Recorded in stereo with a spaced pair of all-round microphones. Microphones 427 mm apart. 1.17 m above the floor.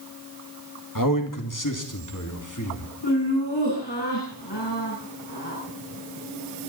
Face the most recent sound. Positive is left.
turn(degrees=75)  # may be behind; listen again after turning